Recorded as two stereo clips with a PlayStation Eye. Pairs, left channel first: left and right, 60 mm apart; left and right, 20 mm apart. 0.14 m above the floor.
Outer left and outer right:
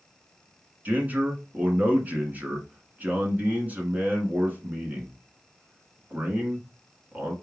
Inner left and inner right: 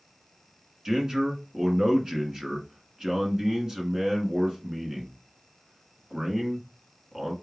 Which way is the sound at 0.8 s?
30° right (ahead or behind).